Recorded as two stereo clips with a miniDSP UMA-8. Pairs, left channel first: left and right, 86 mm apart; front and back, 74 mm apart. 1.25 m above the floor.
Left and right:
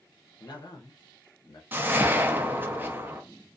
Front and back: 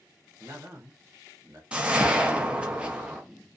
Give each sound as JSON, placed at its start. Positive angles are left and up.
{"t": 0.4, "sound": "a man speaking", "azimuth_deg": 130, "distance_m": 0.7}
{"t": 1.7, "sound": "a whoosh", "azimuth_deg": -120, "distance_m": 0.5}